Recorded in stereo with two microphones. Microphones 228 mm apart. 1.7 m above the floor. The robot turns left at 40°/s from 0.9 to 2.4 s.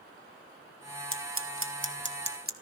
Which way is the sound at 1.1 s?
65° right (ahead or behind).